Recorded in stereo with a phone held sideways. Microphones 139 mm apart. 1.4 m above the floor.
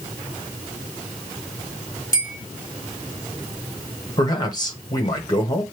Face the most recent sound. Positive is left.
turn(degrees=30)  # may be behind; listen again after turning